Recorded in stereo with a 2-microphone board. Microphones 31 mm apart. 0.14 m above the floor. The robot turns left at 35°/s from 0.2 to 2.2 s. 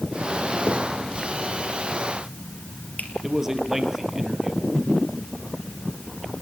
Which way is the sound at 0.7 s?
55° left (ahead or behind).